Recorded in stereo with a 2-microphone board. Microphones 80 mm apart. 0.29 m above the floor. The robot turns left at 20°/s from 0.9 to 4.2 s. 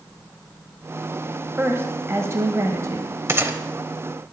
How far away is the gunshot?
About 0.7 m.